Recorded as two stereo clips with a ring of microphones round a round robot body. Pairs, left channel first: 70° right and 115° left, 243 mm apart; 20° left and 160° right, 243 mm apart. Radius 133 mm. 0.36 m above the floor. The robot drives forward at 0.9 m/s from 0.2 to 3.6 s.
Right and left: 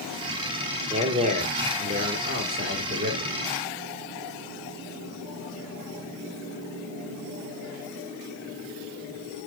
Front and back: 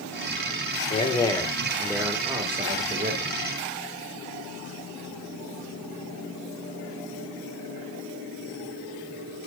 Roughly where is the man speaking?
Ahead left.